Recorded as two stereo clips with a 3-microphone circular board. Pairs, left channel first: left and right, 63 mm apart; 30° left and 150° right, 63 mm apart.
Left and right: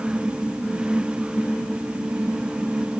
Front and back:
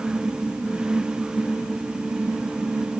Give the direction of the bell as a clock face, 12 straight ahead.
No bell in this recording.